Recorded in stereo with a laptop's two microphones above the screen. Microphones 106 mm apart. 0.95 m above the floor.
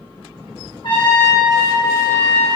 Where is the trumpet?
50° left (ahead or behind), 1.1 m.